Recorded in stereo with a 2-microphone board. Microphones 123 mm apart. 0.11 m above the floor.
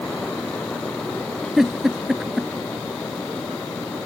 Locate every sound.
1.6 s a giggle: 5° right (ahead or behind)